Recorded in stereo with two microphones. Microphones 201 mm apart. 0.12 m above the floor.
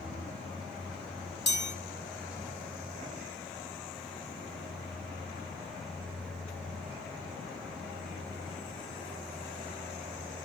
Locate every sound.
1.5 s a chime: 60° left (ahead or behind), 4.5 m